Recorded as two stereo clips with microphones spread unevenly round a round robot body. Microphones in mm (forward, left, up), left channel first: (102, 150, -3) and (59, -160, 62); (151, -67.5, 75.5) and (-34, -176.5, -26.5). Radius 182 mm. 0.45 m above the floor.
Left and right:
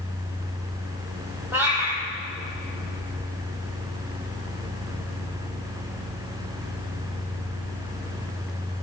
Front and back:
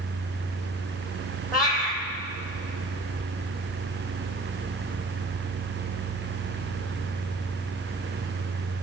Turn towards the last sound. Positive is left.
turn(degrees=-15)